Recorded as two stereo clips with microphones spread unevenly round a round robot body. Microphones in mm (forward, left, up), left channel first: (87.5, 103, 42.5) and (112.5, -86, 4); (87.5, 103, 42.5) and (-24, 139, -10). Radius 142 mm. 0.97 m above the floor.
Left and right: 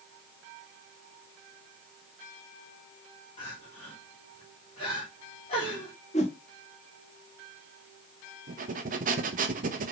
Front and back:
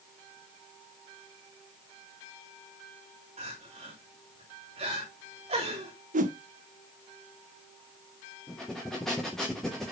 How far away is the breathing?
About 0.9 m.